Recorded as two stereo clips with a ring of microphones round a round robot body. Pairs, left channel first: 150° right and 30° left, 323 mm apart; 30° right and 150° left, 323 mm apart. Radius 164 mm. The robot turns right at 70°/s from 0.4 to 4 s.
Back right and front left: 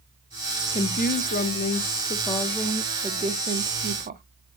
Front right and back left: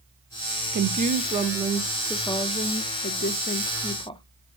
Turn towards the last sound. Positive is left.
turn(degrees=30)